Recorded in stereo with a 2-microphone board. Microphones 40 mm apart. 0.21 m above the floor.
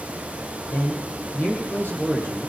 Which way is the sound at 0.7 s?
70° left (ahead or behind).